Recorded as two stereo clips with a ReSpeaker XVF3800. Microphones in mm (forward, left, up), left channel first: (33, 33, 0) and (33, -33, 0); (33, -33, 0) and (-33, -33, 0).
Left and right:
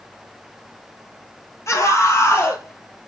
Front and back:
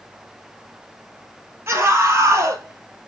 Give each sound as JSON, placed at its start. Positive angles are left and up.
{"t": 1.7, "sound": "a scream", "azimuth_deg": 130, "distance_m": 2.5}